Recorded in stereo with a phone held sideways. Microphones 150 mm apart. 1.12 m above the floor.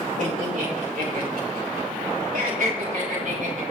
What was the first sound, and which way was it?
Laughter, 55° right (ahead or behind).